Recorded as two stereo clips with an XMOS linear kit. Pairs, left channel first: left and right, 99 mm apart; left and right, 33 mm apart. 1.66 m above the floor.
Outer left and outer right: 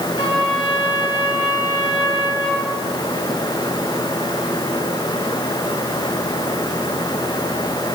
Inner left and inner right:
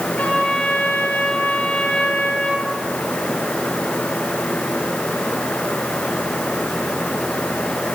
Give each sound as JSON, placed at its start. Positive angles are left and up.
{"t": 0.2, "sound": "a trumpet", "side_deg": 75, "distance_m": 4.5}